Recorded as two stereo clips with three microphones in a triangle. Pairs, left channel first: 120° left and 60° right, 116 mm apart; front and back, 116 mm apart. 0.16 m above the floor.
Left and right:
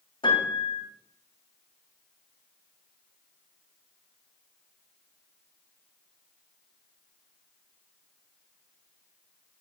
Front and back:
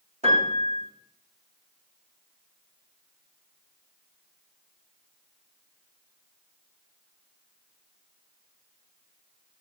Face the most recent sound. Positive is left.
turn(degrees=165)